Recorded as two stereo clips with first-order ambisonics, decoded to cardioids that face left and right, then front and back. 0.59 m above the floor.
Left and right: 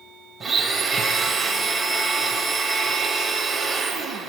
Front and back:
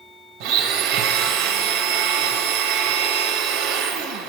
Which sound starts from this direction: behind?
A blender, at 0.4 s.